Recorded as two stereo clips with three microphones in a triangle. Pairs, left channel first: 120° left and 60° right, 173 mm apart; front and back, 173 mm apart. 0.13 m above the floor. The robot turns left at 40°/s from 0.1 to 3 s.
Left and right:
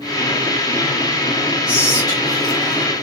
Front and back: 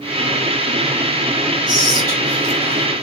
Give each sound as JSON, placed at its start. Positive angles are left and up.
{"t": 1.7, "sound": "whispering", "azimuth_deg": 170, "distance_m": 1.8}